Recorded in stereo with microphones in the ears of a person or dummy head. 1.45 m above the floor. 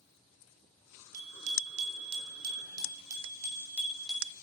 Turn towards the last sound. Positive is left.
turn(degrees=-5)  # may be behind; listen again after turning